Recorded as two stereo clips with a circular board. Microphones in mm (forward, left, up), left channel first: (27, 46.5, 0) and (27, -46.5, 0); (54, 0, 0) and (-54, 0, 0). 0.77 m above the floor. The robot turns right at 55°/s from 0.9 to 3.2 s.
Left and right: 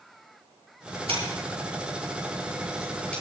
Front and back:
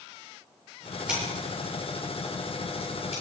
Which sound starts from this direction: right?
Scissors, at 1.1 s.